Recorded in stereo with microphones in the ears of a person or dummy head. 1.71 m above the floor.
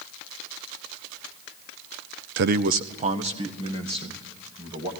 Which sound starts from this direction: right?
A man speaking, at 2.4 s.